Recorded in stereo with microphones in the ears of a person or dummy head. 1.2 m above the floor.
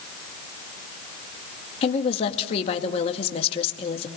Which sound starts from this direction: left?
A woman speaking, at 1.8 s.